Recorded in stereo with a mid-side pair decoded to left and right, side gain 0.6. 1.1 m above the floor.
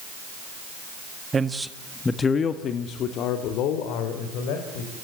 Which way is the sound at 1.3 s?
25° right.